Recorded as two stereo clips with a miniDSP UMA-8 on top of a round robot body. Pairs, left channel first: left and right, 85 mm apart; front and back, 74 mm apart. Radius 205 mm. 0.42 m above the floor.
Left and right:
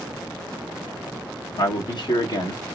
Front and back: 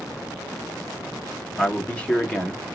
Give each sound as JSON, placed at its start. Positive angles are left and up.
{"t": 1.6, "sound": "a man speaking", "azimuth_deg": 70, "distance_m": 1.6}